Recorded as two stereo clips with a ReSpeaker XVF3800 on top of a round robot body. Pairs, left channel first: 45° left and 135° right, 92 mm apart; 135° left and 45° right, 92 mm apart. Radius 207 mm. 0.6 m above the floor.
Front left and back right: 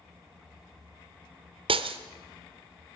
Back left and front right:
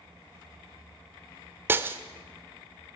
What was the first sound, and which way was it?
Breaking glass, 110° right.